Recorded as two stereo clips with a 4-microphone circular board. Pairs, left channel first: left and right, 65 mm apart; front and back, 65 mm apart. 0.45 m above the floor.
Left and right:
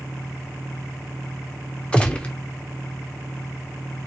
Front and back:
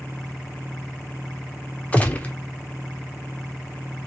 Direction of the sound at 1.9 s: 35° left.